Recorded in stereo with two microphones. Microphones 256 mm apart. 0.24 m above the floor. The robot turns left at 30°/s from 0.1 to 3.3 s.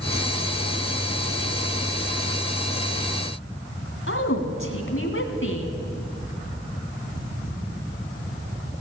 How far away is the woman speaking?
About 1.6 m.